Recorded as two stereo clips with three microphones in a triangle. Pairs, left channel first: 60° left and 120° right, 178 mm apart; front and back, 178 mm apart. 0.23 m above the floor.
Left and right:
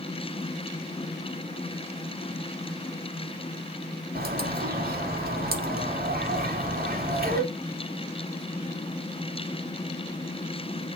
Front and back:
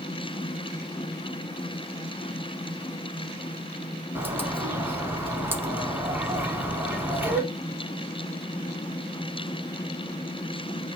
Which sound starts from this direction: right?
A bird, at 4.2 s.